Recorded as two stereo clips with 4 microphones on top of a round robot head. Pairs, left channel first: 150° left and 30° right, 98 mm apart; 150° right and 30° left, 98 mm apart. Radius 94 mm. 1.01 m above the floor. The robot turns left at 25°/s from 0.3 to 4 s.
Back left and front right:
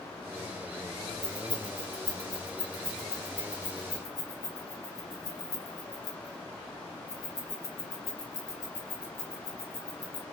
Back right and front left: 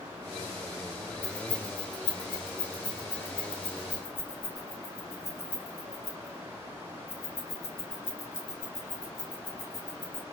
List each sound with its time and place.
1.2 s keys jangling: 85° right, 1.7 m; by 10.2 s 150° right, 1.7 m